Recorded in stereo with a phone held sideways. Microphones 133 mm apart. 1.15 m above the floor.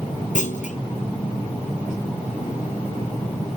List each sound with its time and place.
0.3 s a clunk: 70° left (ahead or behind), 1.0 m